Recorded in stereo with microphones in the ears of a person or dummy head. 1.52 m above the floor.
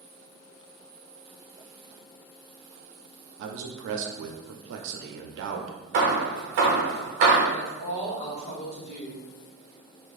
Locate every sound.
3.4 s a man speaking: 65° right (ahead or behind), 0.6 m
5.9 s hammering: 45° right (ahead or behind), 0.8 m
7.5 s a woman speaking: 35° left (ahead or behind), 1.1 m